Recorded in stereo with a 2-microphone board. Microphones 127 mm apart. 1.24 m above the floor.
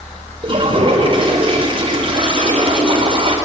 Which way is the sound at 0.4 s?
40° right (ahead or behind).